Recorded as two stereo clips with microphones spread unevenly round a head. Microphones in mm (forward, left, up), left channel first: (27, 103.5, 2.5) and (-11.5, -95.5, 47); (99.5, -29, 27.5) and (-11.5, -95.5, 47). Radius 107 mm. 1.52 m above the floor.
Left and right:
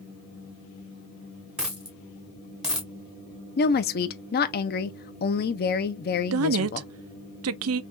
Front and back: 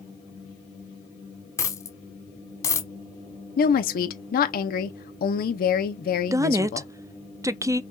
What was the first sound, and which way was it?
A dropped coin, 35° right.